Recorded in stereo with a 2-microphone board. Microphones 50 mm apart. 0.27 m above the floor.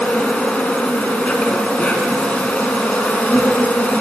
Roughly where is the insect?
Left.